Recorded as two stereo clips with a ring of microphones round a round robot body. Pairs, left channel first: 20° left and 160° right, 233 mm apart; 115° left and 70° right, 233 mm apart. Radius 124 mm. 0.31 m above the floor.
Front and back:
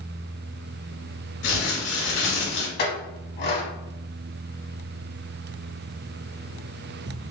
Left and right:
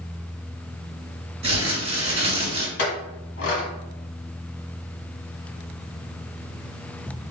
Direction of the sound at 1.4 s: Straight ahead.